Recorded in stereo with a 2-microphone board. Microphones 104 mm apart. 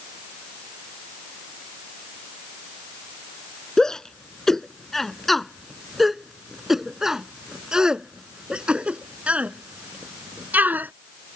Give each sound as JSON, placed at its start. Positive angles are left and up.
{"t": 3.8, "sound": "a shout", "side_deg": 5}